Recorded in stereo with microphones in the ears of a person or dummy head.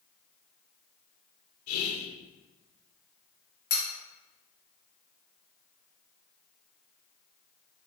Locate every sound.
1.7 s whispering: 70° left (ahead or behind), 0.6 m
3.7 s cutlery clinking: 50° left (ahead or behind), 1.0 m